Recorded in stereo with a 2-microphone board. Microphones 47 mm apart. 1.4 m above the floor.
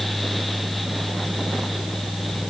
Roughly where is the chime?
No chime in this recording.